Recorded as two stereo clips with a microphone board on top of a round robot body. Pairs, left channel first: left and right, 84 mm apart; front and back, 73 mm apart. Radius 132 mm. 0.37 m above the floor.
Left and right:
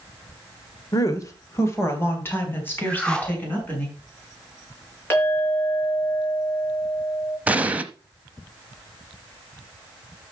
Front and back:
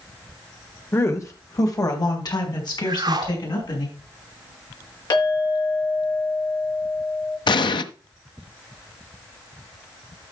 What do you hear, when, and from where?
0.9 s a woman speaking: 50° left, 2 m; by 3.9 s 20° left, 6 m
2.9 s a whoosh: 165° left, 2 m
5.1 s a clink: 25° left, 5 m
7.5 s an explosion: 15° right, 0.8 m